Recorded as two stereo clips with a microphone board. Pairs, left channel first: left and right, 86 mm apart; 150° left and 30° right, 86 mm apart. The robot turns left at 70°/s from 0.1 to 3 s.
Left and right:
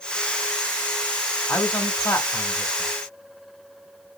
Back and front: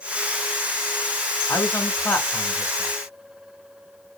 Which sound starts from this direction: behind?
A man speaking, at 1.5 s.